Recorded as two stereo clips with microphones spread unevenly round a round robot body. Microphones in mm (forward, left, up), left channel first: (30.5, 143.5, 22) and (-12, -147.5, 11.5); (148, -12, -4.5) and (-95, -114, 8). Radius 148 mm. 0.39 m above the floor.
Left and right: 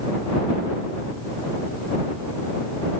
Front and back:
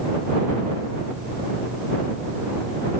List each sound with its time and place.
Only background noise.